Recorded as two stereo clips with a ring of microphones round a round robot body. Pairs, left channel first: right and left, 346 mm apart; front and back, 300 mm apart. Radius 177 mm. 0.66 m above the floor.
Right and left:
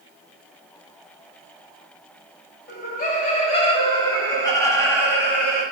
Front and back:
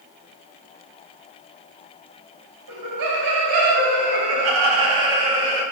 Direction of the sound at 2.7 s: 155° right.